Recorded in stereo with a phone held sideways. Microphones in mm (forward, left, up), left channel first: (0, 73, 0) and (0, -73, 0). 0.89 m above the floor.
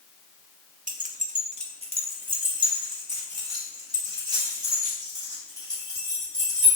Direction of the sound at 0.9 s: 65° right (ahead or behind).